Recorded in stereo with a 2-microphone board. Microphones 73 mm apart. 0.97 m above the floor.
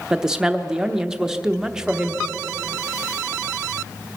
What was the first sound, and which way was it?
A woman speaking, 10° right (ahead or behind).